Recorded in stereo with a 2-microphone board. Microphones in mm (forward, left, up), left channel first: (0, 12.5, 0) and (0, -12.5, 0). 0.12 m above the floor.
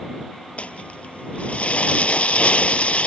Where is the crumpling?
60° left (ahead or behind).